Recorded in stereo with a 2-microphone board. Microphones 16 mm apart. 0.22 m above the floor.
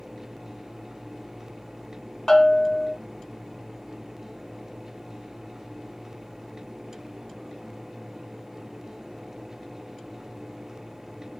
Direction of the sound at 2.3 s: 40° left (ahead or behind).